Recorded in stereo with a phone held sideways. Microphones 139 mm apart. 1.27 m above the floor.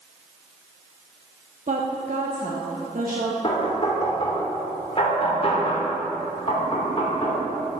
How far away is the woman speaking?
About 1.0 m.